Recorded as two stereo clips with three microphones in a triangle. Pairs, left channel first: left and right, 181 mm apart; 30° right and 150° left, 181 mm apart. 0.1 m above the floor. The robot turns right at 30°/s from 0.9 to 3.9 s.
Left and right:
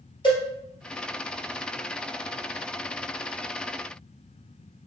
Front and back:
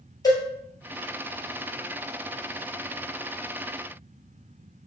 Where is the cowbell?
35° left, 2.5 m.